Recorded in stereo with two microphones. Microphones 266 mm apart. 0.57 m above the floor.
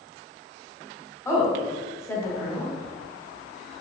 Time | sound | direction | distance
1.2 | a woman speaking | 10° left (ahead or behind) | 1.3 m